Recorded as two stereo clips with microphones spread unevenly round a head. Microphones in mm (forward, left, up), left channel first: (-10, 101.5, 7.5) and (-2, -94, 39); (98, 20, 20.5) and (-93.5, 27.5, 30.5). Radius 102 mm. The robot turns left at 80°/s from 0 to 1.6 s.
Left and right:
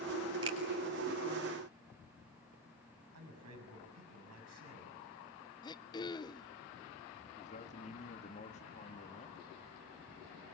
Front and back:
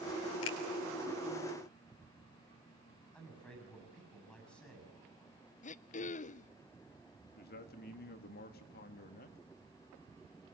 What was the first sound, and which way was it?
A finger snap, 15° right.